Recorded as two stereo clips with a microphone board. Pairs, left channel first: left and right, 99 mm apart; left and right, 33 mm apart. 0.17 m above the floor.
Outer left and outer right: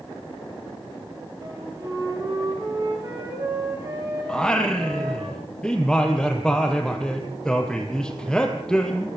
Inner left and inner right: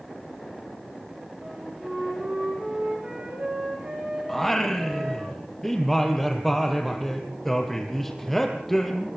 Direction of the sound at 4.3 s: 10° left (ahead or behind).